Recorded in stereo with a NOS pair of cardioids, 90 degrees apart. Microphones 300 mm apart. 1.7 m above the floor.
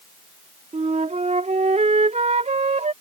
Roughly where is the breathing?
No breathing in this recording.